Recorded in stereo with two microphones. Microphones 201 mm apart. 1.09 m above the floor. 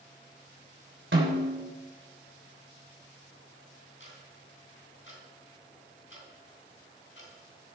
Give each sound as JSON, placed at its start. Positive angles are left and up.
{"t": 1.1, "sound": "a snare drum", "side_deg": -75, "distance_m": 3.5}
{"t": 4.0, "sound": "ticking", "side_deg": 75, "distance_m": 3.5}